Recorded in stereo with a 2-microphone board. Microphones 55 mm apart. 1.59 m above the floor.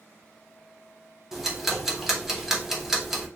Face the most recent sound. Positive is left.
turn(degrees=-5)  # may be behind; listen again after turning